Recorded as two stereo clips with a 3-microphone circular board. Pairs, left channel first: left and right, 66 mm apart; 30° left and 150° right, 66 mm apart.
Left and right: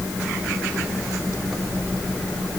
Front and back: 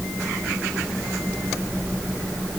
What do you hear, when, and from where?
Only background noise.